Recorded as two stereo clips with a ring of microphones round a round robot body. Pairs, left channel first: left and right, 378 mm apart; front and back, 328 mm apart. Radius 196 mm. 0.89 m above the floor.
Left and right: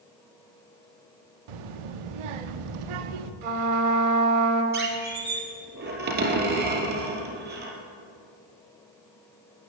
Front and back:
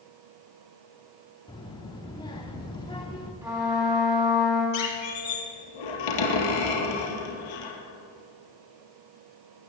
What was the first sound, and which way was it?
A child speaking, 80° right.